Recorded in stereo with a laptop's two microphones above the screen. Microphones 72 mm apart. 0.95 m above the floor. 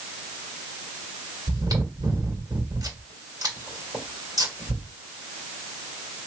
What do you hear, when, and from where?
1.5 s chewing: 55° right (ahead or behind), 1.9 m